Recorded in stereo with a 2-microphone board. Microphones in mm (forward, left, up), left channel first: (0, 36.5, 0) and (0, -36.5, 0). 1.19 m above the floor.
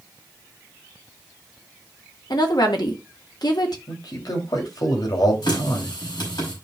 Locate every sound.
2.3 s a woman speaking: 65° left (ahead or behind), 1.6 m
3.9 s a man speaking: 60° left (ahead or behind), 2.5 m
5.4 s a running tap: 75° left (ahead or behind), 5 m